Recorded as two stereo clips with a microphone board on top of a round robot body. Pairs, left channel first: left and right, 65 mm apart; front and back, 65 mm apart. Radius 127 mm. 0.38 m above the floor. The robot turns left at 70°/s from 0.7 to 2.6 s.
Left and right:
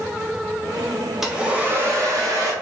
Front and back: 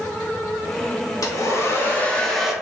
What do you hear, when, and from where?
1.2 s a hair dryer: 10° right, 1.0 m; by 2.5 s 100° right, 1.0 m